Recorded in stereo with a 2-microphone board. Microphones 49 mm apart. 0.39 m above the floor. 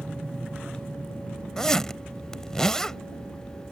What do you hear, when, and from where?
0.0 s an aircraft: 35° right (ahead or behind); by 3.7 s 30° right (ahead or behind)
1.6 s a zipper: 10° left (ahead or behind)